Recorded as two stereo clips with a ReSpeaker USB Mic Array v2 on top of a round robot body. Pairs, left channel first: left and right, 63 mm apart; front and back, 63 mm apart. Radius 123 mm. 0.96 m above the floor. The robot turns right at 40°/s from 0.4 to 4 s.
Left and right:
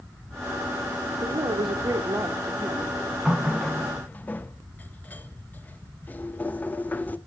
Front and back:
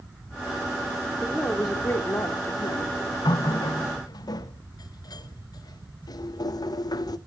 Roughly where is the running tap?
Ahead.